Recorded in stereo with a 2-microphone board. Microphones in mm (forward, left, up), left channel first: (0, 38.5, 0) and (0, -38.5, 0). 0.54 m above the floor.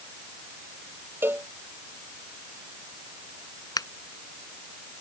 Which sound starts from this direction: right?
A cowbell, at 1.2 s.